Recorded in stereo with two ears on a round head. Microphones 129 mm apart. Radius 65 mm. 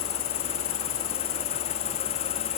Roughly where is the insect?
Left.